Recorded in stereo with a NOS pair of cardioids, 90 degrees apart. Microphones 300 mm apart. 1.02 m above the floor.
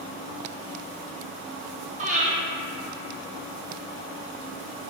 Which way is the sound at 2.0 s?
25° right.